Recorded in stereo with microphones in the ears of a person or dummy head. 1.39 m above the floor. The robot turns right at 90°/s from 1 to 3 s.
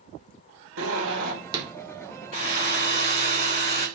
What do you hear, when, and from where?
0.8 s a zipper: 70° right, 1.1 m; by 1.6 s 10° right, 1.1 m
2.3 s a hair dryer: 65° left, 2.5 m; by 3.9 s 125° left, 2.5 m